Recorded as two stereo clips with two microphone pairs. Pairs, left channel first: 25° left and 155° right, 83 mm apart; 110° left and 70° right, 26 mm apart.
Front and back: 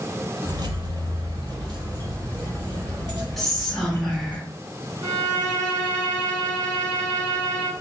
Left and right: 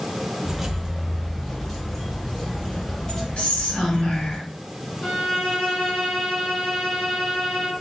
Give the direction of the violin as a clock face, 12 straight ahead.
7 o'clock.